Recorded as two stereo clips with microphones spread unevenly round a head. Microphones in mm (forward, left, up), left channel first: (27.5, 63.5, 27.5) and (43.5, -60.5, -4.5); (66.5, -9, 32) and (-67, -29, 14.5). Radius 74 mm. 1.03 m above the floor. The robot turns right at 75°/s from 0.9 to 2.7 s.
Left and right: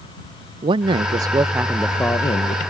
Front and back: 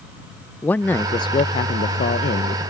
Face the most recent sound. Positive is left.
turn(degrees=65)